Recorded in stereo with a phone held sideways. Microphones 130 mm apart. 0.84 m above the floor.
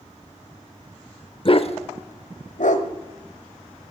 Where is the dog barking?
45° left (ahead or behind), 0.8 m; by 2.9 s 70° left (ahead or behind), 1.4 m.